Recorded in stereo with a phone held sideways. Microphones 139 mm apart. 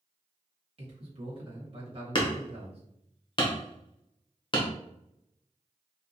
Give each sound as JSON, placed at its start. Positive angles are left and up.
{"t": 0.8, "sound": "a man speaking", "side_deg": -45, "distance_m": 1.3}
{"t": 2.1, "sound": "hammering", "side_deg": 40, "distance_m": 0.6}